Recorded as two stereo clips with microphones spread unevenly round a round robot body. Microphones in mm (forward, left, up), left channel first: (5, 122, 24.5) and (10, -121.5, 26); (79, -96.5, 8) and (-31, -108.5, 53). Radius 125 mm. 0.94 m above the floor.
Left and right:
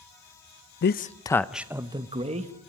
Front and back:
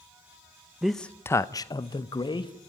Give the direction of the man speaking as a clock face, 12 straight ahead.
9 o'clock.